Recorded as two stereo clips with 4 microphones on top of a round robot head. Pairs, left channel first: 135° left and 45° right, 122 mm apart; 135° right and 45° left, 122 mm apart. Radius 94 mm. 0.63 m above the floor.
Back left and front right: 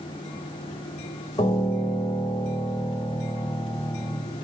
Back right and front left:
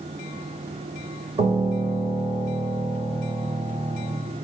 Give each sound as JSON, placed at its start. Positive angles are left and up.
{"t": 1.4, "sound": "a piano", "azimuth_deg": 80, "distance_m": 2.0}